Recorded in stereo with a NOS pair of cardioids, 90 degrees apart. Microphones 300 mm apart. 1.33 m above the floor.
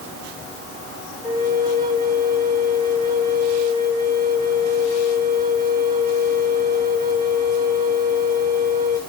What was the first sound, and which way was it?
A flute, 25° right.